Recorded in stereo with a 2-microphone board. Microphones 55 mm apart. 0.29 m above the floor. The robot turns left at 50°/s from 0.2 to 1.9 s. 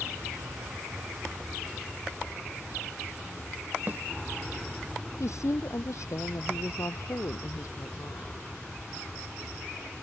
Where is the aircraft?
95° right; by 10.0 s straight behind.